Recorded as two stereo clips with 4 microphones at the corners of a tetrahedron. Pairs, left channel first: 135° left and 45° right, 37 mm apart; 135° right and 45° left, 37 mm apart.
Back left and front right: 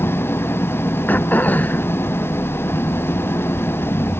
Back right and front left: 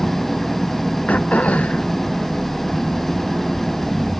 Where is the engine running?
140° left.